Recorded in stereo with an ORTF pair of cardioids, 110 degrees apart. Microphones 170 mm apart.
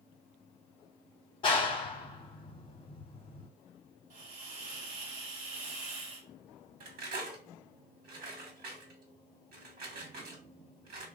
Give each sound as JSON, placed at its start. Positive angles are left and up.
{"t": 1.4, "sound": "a clap", "azimuth_deg": 30, "distance_m": 0.9}
{"t": 4.1, "sound": "a hiss", "azimuth_deg": -65, "distance_m": 1.2}
{"t": 6.8, "sound": "cutlery clinking", "azimuth_deg": -60, "distance_m": 1.2}